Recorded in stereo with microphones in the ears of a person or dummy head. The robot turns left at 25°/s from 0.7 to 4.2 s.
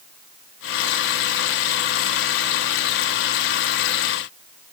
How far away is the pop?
No pop in this recording.